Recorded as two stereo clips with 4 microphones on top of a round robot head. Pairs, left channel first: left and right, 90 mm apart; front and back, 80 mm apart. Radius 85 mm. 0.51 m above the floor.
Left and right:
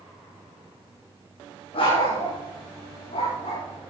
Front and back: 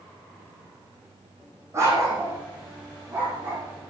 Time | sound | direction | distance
1.7 | a dog barking | 125° left | 7.5 m